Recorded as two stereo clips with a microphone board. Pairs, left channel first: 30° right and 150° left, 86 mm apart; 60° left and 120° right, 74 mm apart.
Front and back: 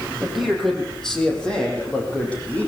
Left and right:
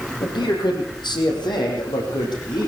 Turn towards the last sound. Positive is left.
turn(degrees=40)